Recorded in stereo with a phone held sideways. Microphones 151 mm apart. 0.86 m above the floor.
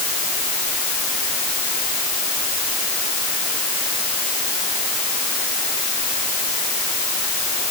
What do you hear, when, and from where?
Only background noise.